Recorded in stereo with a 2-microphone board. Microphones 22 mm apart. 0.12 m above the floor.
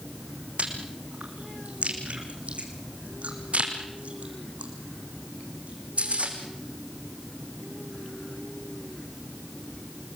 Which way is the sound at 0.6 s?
60° right (ahead or behind).